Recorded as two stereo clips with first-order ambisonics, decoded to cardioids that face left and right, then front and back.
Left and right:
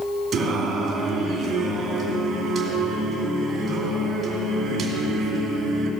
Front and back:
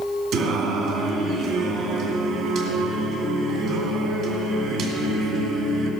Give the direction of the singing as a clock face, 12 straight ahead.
5 o'clock.